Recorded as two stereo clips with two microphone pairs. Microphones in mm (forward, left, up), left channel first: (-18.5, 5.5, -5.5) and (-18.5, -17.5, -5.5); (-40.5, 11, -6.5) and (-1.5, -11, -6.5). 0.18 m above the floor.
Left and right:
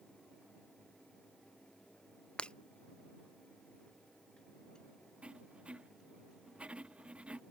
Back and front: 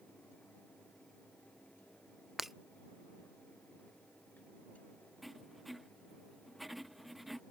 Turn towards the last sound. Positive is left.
turn(degrees=-120)